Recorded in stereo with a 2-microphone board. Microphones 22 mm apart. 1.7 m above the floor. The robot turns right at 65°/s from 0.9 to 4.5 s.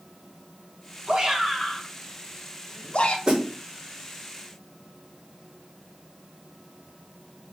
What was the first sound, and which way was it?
A shout, 45° right (ahead or behind).